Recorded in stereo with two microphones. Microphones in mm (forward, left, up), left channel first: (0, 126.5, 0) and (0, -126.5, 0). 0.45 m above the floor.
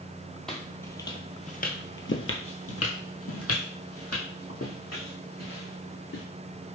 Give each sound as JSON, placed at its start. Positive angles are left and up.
{"t": 0.5, "sound": "footsteps", "side_deg": 0, "distance_m": 0.9}